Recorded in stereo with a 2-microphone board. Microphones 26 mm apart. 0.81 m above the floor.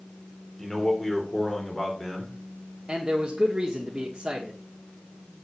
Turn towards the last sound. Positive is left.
turn(degrees=-20)  # may be behind; listen again after turning